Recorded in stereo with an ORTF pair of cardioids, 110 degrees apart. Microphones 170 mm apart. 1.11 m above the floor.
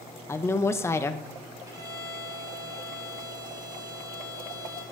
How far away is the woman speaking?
About 0.7 m.